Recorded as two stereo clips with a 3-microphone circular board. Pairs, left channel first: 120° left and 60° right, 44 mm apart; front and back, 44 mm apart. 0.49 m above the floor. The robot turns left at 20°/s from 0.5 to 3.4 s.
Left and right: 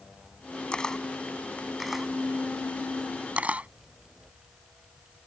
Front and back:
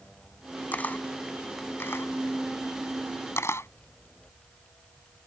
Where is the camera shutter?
50° left; by 3.7 s straight ahead.